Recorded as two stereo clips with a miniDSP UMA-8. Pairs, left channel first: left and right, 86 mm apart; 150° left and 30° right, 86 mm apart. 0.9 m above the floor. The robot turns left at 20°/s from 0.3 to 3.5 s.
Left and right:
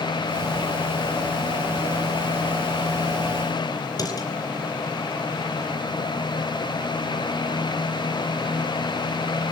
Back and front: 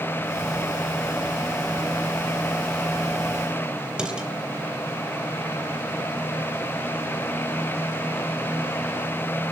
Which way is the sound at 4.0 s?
50° left.